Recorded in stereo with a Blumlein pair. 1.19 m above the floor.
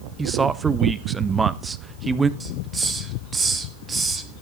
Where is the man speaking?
15° right, 0.9 m.